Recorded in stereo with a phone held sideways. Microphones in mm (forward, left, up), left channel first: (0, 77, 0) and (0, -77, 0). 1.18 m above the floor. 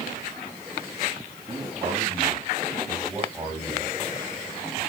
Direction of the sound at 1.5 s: 25° right (ahead or behind).